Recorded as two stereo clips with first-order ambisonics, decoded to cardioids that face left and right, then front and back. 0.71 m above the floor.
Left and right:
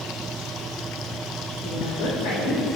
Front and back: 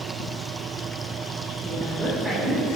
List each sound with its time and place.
1.6 s a woman speaking: 110° left, 2.5 m; by 2.7 s 85° left, 2 m